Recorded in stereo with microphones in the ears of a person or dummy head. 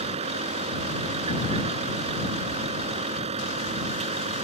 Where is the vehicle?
35° right (ahead or behind).